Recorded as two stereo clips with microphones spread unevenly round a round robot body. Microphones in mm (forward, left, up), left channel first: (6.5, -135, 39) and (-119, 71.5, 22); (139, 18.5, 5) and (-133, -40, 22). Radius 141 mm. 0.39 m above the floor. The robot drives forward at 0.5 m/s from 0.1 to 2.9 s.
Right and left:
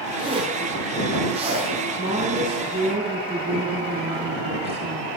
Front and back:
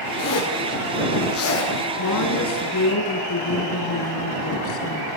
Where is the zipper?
50° left, 8.5 m; by 1.7 s 55° left, 8 m.